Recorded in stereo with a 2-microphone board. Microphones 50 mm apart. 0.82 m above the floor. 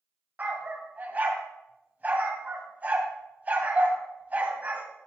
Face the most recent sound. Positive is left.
turn(degrees=-30)  # may be behind; listen again after turning